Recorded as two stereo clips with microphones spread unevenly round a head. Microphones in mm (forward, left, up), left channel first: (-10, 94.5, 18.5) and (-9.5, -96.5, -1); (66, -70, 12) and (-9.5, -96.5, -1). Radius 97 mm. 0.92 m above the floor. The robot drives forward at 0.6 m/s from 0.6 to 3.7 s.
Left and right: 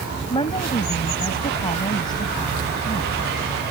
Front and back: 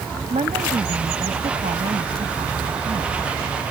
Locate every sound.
0.3 s a woman speaking: 155° left; by 3.3 s 160° left